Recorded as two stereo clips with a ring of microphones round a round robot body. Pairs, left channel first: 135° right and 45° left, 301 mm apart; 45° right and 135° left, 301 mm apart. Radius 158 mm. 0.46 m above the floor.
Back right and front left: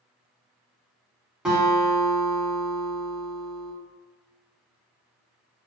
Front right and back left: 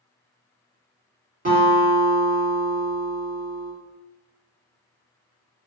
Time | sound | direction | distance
1.4 | a guitar | 130° left | 1.5 m